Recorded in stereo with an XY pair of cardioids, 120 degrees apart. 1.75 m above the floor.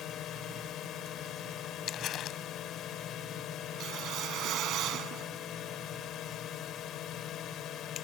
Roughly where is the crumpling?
Ahead left.